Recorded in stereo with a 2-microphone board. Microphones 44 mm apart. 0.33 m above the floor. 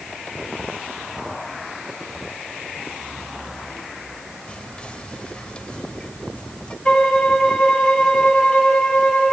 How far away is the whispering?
About 1.3 m.